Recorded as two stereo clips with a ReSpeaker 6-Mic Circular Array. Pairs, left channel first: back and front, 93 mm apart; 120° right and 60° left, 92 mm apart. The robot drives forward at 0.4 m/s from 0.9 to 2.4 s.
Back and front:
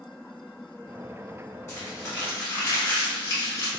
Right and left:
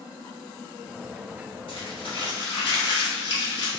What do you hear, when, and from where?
1.7 s crumpling: 125° right, 1.5 m; by 3.7 s 135° right, 1.7 m